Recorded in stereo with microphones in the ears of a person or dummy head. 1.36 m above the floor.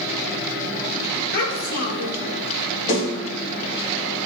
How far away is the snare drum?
About 3.5 m.